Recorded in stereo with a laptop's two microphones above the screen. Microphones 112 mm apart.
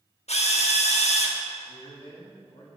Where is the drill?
80° left, 1.2 m.